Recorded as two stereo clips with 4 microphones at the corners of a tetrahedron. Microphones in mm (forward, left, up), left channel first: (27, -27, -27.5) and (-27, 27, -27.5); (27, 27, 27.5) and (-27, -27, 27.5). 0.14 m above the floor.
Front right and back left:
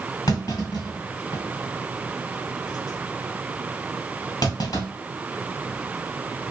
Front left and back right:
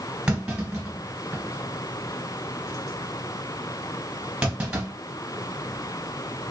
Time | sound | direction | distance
0.3 | a clunk | 60° right | 1.9 m